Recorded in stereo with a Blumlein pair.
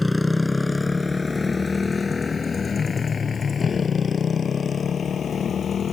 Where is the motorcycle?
5° left; by 5.9 s 20° left.